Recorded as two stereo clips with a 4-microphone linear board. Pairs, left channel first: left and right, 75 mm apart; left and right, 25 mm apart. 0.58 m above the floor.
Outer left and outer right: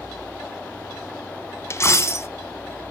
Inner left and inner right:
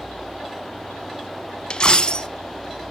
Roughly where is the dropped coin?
Left.